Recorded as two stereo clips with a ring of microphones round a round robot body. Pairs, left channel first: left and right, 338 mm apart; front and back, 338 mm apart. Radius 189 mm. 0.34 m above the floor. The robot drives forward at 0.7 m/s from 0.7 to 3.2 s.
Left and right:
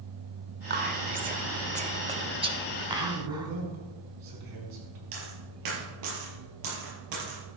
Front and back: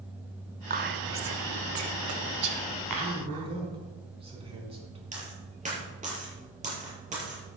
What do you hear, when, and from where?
0.7 s whispering: 130° right, 1.2 m; by 3.5 s 165° right, 2.5 m
3.0 s a man speaking: 105° right, 4.5 m
5.1 s a dropped coin: 110° right, 5 m